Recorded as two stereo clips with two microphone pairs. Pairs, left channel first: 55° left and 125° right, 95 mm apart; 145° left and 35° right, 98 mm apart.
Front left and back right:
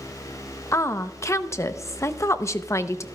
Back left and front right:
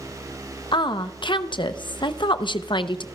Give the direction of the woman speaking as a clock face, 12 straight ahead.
8 o'clock.